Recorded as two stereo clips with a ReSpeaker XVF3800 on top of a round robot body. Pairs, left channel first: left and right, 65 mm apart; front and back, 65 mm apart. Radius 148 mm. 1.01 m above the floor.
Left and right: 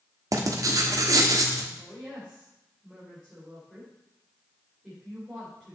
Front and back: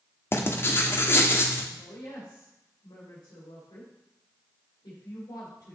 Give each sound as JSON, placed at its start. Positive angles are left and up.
{"t": 0.3, "sound": "writing", "azimuth_deg": -55, "distance_m": 1.3}
{"t": 1.8, "sound": "a woman speaking", "azimuth_deg": -5, "distance_m": 4.0}